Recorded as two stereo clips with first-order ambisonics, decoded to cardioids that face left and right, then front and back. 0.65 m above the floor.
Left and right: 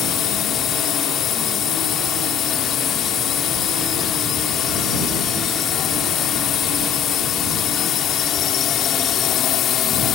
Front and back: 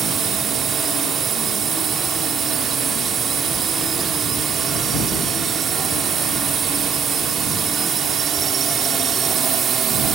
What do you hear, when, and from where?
0.0 s a drone: 125° left